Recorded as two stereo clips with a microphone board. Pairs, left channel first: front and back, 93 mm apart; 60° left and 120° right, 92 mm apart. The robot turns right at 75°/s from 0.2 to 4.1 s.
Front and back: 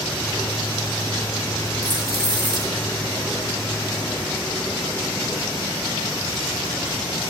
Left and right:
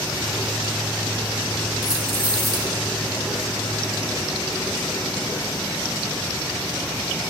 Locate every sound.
1.8 s keys jangling: 100° left, 3 m; by 2.7 s 170° left, 3 m